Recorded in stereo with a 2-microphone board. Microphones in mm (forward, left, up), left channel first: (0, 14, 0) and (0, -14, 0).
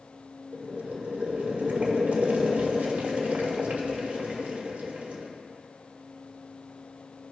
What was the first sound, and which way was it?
Boiling, 60° right (ahead or behind).